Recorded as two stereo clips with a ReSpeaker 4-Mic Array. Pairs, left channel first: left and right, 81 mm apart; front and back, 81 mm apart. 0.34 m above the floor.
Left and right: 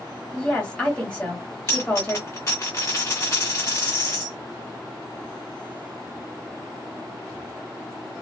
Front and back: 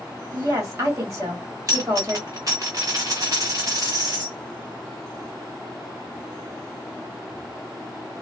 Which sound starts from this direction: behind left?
A dropped coin, at 1.7 s.